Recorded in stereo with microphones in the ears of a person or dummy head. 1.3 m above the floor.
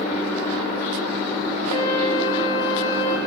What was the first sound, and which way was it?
A flute, 25° left (ahead or behind).